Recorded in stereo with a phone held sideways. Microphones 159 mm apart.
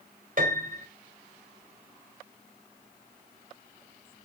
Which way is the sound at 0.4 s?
55° right (ahead or behind).